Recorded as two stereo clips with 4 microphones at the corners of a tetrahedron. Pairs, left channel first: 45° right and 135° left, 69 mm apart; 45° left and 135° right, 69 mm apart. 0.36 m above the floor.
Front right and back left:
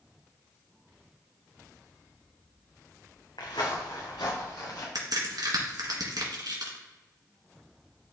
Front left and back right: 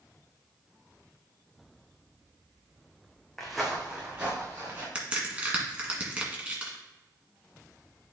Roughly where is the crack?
Behind left.